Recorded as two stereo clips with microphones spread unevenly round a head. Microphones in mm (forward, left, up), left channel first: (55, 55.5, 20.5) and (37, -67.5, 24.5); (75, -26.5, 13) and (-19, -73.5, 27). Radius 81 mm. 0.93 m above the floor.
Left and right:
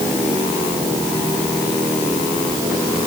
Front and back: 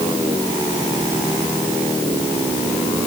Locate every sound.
Only background noise.